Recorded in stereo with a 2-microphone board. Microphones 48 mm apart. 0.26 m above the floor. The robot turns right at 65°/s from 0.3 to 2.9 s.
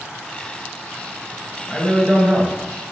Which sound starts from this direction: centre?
A man speaking, at 1.7 s.